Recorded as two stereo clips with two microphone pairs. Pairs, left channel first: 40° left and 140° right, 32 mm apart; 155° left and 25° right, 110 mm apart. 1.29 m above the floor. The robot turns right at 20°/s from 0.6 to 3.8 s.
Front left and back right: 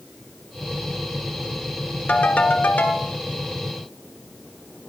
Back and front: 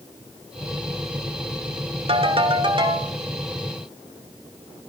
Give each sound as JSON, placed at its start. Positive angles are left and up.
{"t": 2.1, "sound": "a ringtone", "azimuth_deg": 0, "distance_m": 1.6}